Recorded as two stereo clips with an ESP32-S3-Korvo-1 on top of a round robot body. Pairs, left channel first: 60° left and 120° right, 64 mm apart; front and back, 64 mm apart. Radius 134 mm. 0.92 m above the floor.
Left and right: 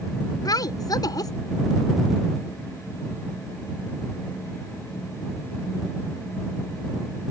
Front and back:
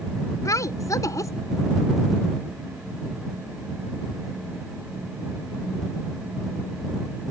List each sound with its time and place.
0.5 s a woman speaking: 40° left